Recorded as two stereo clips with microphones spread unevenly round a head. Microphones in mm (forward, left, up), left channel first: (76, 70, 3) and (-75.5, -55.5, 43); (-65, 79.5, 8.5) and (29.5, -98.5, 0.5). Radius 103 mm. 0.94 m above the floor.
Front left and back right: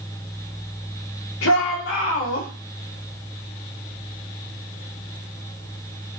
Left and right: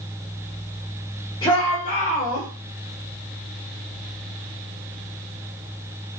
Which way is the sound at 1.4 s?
50° left.